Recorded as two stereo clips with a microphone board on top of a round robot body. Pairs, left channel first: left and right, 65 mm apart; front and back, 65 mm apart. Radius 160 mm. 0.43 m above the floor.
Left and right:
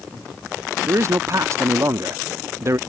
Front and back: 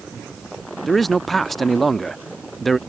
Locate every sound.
0.9 s a man speaking: 85° right